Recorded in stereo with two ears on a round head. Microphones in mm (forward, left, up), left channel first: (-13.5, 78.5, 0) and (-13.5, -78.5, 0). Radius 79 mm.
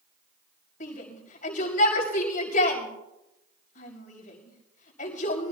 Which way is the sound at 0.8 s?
40° left (ahead or behind).